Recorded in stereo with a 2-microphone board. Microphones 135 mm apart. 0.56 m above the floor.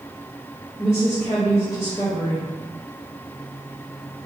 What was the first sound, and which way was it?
A woman speaking, 35° left (ahead or behind).